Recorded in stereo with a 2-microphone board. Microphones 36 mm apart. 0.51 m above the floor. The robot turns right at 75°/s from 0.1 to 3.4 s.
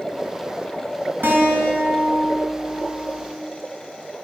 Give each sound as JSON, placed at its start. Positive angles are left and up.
{"t": 1.2, "sound": "a guitar", "azimuth_deg": -100, "distance_m": 5.5}